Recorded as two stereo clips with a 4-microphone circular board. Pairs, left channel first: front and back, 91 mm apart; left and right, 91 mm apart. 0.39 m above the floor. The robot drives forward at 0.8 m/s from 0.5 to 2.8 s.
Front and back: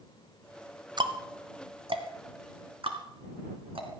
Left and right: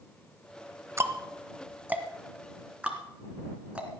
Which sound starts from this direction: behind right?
Ticking, at 1.0 s.